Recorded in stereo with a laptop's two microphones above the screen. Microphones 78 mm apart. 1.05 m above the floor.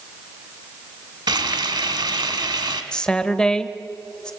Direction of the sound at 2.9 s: 10° left (ahead or behind).